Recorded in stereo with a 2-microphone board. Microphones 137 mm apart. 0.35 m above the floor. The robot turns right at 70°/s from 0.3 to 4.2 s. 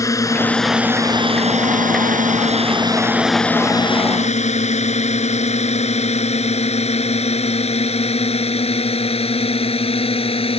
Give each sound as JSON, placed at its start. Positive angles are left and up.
{"t": 0.0, "sound": "a drone", "side_deg": 20}